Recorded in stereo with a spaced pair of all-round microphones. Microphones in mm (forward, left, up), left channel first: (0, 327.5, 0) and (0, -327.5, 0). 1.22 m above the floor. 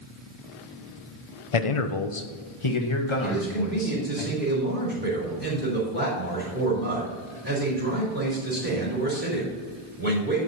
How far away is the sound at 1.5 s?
About 0.7 m.